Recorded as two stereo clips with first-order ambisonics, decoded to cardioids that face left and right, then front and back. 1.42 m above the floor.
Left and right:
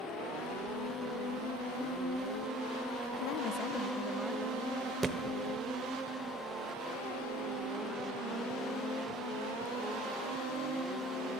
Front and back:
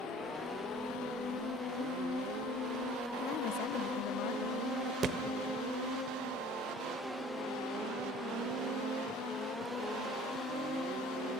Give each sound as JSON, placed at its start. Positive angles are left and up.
{"t": 3.2, "sound": "a woman speaking", "azimuth_deg": 60, "distance_m": 1.1}
{"t": 5.0, "sound": "a thud", "azimuth_deg": -160, "distance_m": 1.2}